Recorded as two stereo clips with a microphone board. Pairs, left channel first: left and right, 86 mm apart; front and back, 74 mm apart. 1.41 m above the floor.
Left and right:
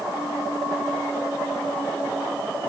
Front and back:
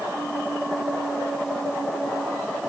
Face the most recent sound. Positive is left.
No sound to turn to.